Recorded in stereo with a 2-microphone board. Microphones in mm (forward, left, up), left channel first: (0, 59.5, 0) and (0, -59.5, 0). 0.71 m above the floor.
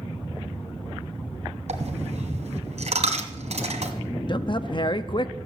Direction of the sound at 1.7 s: 75° right (ahead or behind).